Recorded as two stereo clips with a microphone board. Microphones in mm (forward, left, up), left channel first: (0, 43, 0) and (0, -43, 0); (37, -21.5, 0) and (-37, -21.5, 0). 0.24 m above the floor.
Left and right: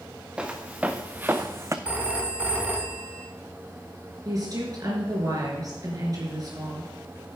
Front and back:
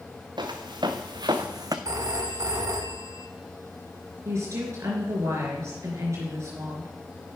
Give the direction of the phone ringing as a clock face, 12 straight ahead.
5 o'clock.